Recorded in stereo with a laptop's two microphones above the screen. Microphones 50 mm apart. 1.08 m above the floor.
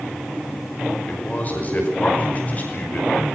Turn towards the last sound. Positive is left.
turn(degrees=30)  # may be behind; listen again after turning